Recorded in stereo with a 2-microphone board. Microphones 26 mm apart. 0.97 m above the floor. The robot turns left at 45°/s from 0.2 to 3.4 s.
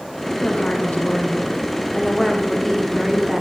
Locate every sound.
0.4 s a woman speaking: 105° left, 1.2 m; by 3.4 s 30° right, 1.2 m